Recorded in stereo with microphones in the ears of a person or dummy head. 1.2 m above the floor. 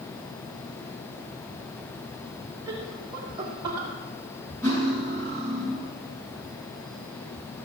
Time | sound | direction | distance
2.7 | laughter | 20° right (ahead or behind) | 3.5 m
4.6 | cutlery clinking | 15° left (ahead or behind) | 6.5 m